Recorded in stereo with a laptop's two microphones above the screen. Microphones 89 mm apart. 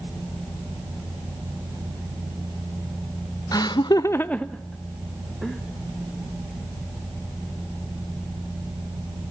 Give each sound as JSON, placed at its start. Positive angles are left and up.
{"t": 3.5, "sound": "laughter", "side_deg": 45, "distance_m": 0.7}